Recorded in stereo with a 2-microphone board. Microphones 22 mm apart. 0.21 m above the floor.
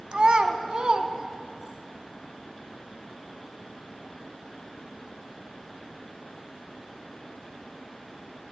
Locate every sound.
0.1 s a child speaking: 45° right (ahead or behind), 0.7 m; by 1.8 s 40° right (ahead or behind), 1.2 m